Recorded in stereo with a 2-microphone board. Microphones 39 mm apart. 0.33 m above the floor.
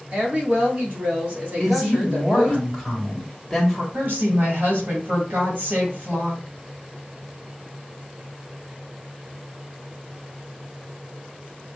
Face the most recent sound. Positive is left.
turn(degrees=-50)  # may be behind; listen again after turning